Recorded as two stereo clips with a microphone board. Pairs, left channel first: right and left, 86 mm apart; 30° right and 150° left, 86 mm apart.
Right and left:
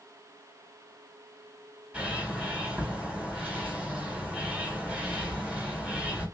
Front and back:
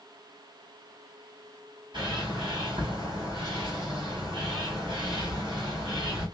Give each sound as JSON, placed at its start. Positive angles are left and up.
{"t": 1.9, "sound": "a bird", "azimuth_deg": 165, "distance_m": 2.0}